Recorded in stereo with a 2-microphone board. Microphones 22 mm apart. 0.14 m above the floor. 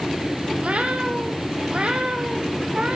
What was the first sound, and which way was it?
A cat meowing, 70° right (ahead or behind).